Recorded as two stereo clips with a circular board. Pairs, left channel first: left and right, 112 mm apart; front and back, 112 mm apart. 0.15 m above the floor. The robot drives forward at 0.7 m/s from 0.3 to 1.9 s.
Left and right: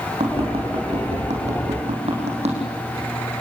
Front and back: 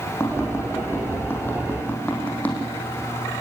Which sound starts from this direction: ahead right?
Tapping, at 0.2 s.